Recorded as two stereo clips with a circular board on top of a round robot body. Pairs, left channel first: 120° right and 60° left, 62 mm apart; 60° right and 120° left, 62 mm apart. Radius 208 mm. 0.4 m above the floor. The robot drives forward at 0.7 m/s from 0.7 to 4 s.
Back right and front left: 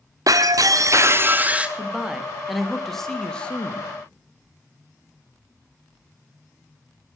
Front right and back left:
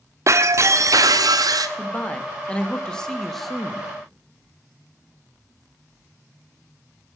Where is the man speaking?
15° right, 1.7 m; by 3.9 s 160° right, 1.5 m.